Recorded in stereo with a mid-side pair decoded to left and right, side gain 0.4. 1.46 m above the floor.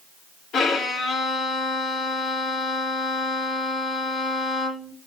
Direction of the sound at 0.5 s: 65° left.